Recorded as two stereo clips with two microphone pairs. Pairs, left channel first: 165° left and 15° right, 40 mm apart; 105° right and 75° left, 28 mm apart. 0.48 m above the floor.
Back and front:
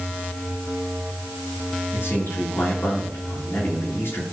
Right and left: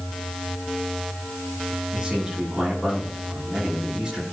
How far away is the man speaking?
About 9 m.